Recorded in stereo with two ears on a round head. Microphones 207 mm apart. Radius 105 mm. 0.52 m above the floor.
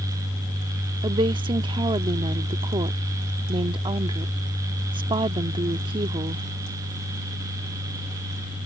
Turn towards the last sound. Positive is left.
turn(degrees=-20)  # may be behind; listen again after turning